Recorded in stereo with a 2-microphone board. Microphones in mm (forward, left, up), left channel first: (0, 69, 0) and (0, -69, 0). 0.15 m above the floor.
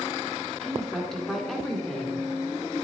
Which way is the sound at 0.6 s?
5° left (ahead or behind).